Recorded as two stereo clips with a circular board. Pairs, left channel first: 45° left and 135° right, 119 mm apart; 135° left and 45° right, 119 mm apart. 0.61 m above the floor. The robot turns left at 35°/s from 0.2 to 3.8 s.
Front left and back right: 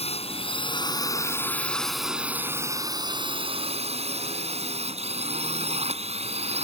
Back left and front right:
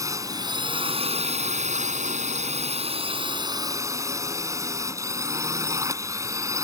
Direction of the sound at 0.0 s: 15° left.